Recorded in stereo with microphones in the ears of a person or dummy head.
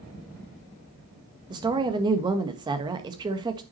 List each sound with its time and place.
1.5 s a woman speaking: 20° right (ahead or behind), 1.5 m